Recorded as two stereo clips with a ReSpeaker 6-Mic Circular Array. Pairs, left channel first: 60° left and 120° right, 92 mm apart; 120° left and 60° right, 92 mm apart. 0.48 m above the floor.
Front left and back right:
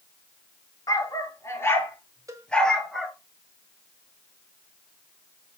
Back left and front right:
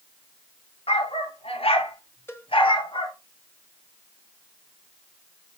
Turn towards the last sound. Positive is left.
turn(degrees=-175)